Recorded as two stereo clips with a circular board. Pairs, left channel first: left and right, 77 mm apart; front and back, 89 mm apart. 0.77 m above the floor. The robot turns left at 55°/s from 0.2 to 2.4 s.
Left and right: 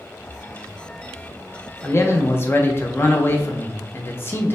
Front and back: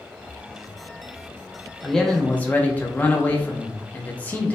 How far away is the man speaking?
About 0.6 m.